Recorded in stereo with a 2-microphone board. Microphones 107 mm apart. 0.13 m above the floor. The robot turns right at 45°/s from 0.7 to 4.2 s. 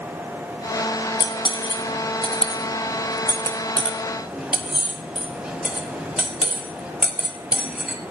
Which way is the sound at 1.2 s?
40° left (ahead or behind).